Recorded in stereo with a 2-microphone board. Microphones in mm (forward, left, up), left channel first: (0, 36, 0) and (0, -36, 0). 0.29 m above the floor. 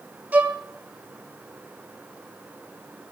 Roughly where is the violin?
Right.